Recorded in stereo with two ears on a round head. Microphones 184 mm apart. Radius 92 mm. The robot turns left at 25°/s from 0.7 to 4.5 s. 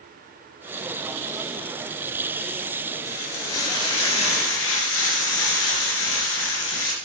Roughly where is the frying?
Left.